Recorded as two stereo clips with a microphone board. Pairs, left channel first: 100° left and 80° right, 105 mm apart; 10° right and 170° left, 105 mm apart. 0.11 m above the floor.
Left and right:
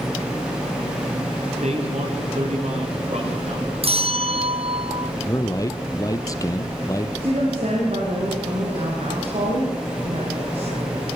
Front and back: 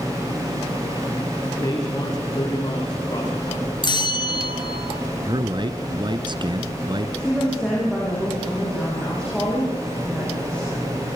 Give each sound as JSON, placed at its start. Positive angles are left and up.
{"t": 1.5, "sound": "a man speaking", "azimuth_deg": -70, "distance_m": 10.0}
{"t": 3.8, "sound": "a bell", "azimuth_deg": -60, "distance_m": 0.7}
{"t": 5.2, "sound": "a man speaking", "azimuth_deg": 145, "distance_m": 2.0}
{"t": 7.2, "sound": "a woman speaking", "azimuth_deg": -95, "distance_m": 9.5}